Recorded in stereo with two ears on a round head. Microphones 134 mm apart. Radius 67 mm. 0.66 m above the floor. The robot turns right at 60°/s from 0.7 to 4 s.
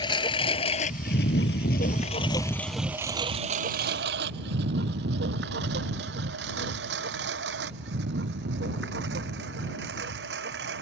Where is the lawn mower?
30° left (ahead or behind); by 10.8 s 85° right.